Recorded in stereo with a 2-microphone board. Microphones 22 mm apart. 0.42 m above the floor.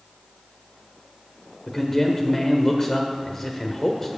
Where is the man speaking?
20° left (ahead or behind), 1.1 m.